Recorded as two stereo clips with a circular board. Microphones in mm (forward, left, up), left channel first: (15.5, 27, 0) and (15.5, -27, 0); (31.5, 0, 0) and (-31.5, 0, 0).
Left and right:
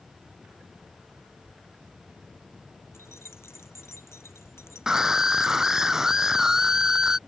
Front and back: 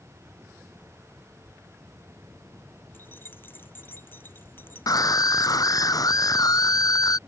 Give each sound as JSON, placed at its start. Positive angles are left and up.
{"t": 2.9, "sound": "keys jangling", "azimuth_deg": 55}
{"t": 4.9, "sound": "a scream", "azimuth_deg": -10}